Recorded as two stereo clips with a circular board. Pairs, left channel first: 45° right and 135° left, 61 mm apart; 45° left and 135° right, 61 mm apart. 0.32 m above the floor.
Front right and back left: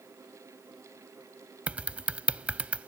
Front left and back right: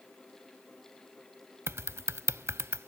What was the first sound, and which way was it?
Typing on a keyboard, 160° right.